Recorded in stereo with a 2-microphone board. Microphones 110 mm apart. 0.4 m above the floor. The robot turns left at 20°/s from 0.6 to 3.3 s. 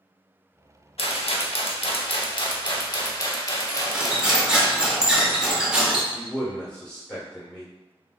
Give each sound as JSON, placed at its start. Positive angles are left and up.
{"t": 1.0, "sound": "a rattle", "azimuth_deg": 80, "distance_m": 0.5}
{"t": 3.7, "sound": "cutlery clinking", "side_deg": -10, "distance_m": 0.6}
{"t": 6.1, "sound": "a man speaking", "side_deg": 10, "distance_m": 1.1}